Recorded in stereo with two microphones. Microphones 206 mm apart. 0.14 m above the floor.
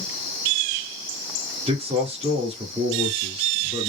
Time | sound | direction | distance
1.7 | a man speaking | 30° right (ahead or behind) | 2.5 m